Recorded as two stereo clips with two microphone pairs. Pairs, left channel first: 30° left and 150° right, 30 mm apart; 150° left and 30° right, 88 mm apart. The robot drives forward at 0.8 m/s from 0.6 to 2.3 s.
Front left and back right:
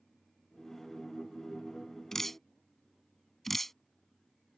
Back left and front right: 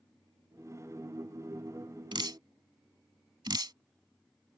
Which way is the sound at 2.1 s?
45° right.